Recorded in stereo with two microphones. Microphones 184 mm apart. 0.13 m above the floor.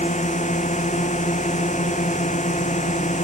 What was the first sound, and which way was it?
A drone, 45° left (ahead or behind).